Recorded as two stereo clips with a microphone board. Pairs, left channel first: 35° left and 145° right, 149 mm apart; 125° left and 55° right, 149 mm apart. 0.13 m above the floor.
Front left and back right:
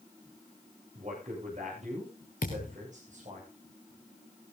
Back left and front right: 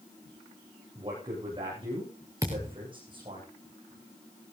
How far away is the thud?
About 3.5 m.